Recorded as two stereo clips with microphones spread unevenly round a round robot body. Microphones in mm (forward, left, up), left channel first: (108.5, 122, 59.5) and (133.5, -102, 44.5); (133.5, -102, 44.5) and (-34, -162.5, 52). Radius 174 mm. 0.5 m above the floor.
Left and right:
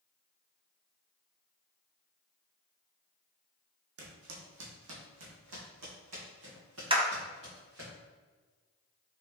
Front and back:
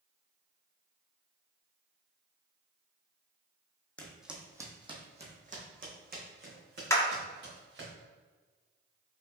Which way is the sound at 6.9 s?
40° right.